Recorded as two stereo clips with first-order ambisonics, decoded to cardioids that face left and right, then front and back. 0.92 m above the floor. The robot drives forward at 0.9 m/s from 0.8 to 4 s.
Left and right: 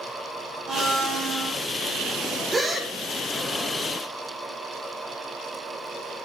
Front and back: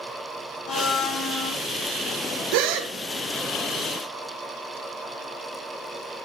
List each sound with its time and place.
0.7 s a blender: 25° right, 2.5 m; by 1.6 s 35° right, 2.0 m
2.5 s a gasp: 170° right, 0.6 m; by 2.9 s 175° right, 1.0 m